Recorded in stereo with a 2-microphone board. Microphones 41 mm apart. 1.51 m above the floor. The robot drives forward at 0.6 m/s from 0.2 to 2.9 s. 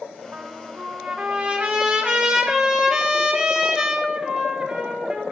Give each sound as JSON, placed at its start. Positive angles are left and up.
{"t": 0.3, "sound": "a trumpet", "side_deg": -35, "distance_m": 1.7}